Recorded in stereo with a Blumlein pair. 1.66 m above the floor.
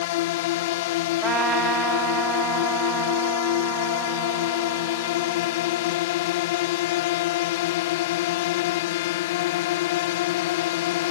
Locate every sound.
0.0 s a drone: 50° left
1.2 s a trumpet: 20° right